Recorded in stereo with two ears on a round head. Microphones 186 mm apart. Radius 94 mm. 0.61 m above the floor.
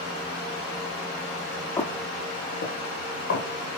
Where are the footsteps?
15° left (ahead or behind), 0.8 m; by 3.5 s 65° left (ahead or behind), 1.3 m.